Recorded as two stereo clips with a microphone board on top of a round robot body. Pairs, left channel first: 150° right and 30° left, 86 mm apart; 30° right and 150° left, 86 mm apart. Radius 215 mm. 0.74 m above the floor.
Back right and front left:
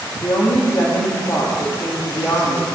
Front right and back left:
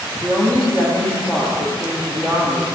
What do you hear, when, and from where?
0.2 s a woman speaking: 105° right, 2 m